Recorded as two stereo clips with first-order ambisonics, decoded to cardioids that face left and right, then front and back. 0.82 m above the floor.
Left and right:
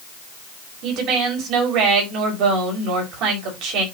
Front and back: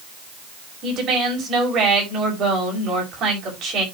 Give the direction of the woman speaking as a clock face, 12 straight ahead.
4 o'clock.